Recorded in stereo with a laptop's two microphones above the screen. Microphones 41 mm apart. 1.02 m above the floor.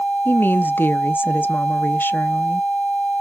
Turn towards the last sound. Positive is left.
turn(degrees=55)  # may be behind; listen again after turning